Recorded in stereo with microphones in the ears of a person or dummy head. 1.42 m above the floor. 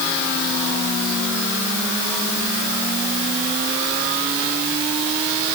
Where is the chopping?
I don't hear chopping.